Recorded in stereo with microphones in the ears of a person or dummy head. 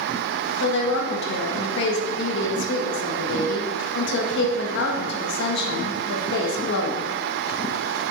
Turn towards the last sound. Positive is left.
turn(degrees=70)  # may be behind; listen again after turning